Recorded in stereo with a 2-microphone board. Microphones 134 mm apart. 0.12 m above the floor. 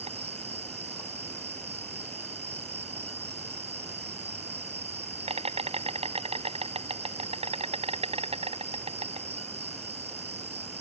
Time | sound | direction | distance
0.0 | an insect | 50° right (ahead or behind) | ?